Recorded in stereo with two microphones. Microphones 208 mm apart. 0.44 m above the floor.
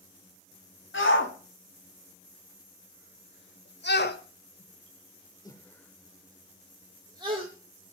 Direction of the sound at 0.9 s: 70° left (ahead or behind).